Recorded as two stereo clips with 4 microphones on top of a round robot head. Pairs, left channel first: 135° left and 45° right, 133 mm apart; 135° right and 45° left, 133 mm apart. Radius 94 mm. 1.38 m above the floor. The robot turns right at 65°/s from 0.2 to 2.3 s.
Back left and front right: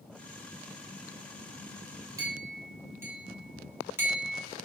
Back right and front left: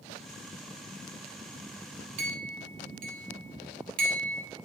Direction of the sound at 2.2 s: 20° left.